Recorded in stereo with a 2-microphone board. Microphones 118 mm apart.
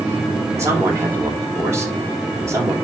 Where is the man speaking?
25° right (ahead or behind), 3.5 m.